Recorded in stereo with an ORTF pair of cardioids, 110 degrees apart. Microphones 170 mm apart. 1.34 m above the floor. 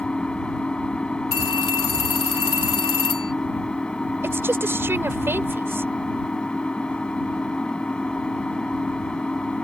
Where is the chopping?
I don't hear chopping.